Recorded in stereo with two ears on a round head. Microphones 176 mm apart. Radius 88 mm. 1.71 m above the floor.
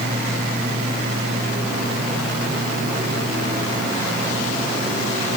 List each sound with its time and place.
Only background noise.